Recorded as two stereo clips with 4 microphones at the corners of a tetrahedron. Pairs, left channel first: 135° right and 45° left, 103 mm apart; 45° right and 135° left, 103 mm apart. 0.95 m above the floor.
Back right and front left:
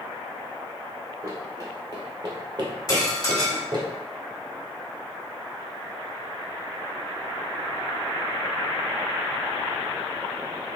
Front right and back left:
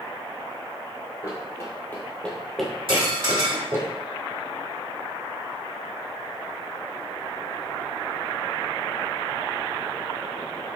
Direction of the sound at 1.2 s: 5° right.